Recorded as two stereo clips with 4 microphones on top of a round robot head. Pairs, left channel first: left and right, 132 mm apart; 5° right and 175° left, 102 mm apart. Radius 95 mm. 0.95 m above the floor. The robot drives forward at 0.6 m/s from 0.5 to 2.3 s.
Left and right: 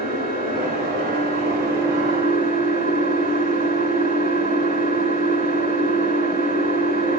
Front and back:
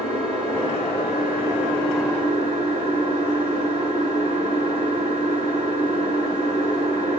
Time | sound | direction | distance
0.0 | an engine running | 85° right | 7.5 m